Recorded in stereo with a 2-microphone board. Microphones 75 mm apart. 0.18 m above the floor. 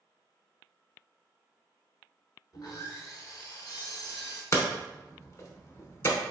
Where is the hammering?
45° left (ahead or behind), 0.8 m.